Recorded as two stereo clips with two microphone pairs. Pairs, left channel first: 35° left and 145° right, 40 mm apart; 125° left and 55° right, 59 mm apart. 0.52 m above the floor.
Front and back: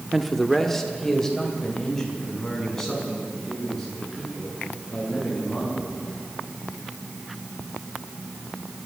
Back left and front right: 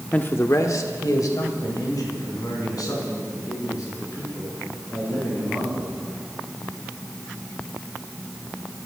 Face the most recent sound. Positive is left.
turn(degrees=110)